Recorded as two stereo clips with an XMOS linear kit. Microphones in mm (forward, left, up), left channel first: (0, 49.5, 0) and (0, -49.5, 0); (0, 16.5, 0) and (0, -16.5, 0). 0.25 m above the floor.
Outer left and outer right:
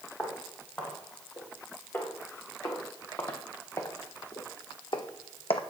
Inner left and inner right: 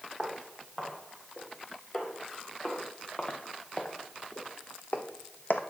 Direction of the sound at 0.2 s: 20° left (ahead or behind).